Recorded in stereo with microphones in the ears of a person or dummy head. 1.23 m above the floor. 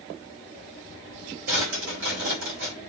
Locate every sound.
1.5 s a drawer: 65° right (ahead or behind), 4 m